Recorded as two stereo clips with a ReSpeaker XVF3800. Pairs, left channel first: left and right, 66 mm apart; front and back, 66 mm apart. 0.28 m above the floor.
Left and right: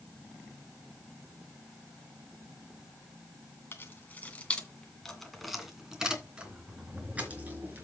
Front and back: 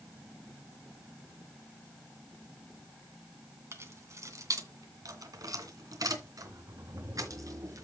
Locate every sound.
3.7 s keys jangling: 140° left, 2 m; by 7.8 s 150° right, 3.5 m